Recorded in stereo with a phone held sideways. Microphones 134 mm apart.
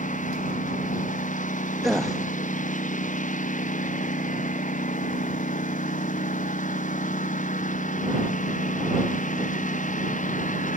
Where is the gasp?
Centre (ahead or behind).